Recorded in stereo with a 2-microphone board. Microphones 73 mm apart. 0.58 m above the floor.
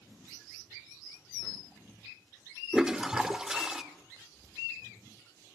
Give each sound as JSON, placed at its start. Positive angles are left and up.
{"t": 2.7, "sound": "a toilet flushing", "side_deg": -10, "distance_m": 1.4}